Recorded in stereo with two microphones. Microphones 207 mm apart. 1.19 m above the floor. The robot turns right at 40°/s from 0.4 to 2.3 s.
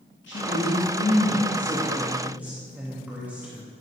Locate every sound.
0.3 s a woman speaking: 110° left, 2 m; by 3.7 s 170° right, 2 m